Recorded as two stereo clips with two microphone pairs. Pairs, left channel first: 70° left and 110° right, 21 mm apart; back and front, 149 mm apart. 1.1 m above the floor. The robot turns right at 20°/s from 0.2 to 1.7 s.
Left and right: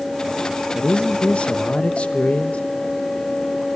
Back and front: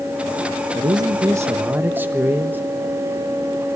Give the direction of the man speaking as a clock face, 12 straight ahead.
10 o'clock.